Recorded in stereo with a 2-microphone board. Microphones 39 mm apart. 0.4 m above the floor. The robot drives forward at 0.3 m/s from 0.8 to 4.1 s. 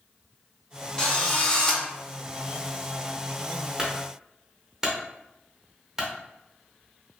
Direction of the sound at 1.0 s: 25° left (ahead or behind).